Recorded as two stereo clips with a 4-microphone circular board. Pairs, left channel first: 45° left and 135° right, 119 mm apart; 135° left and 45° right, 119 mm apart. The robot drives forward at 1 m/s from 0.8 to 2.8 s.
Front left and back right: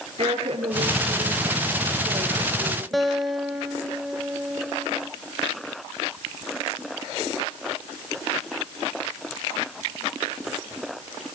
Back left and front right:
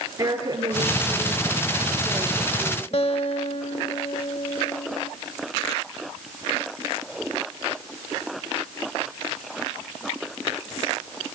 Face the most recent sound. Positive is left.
turn(degrees=135)